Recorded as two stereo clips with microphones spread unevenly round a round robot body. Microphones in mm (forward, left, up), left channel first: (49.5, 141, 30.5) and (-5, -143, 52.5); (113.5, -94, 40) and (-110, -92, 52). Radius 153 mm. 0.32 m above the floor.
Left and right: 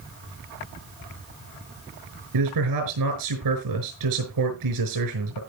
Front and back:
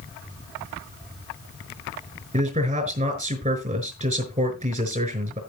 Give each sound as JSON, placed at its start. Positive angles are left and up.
{"t": 2.3, "sound": "a man speaking", "azimuth_deg": -125, "distance_m": 5.0}